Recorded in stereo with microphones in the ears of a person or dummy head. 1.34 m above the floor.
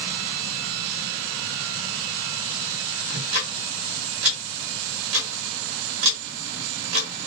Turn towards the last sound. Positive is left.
turn(degrees=-80)